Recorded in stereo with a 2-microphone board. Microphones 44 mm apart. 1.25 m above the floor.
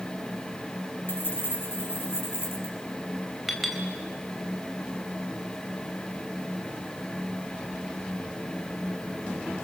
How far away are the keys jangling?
About 5.5 m.